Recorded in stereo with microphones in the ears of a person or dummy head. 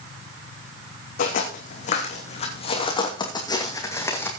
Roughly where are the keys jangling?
No keys jangling in this recording.